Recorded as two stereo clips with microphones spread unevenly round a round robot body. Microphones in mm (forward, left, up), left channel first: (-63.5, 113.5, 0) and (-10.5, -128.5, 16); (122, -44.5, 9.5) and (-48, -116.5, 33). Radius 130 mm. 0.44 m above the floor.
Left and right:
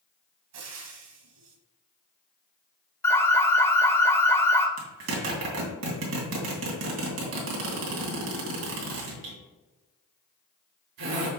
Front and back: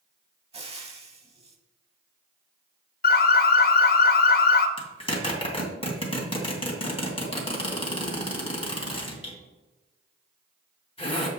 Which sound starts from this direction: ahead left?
An alarm, at 3.0 s.